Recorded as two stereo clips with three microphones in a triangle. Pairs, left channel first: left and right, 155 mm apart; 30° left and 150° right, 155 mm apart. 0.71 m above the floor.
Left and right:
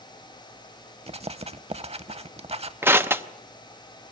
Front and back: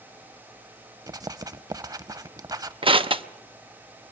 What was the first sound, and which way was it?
Writing, 95° right.